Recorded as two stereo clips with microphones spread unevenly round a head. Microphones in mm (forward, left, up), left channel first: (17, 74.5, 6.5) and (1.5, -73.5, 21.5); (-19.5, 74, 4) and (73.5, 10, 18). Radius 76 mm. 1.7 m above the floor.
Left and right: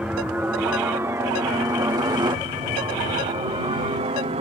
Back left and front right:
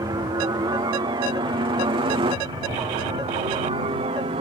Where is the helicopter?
15° right; by 4.4 s 60° right.